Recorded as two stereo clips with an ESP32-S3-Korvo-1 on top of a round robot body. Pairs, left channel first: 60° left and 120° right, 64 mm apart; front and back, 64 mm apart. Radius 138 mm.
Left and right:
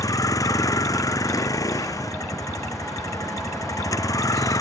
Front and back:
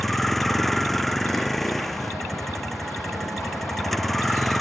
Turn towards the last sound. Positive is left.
turn(degrees=85)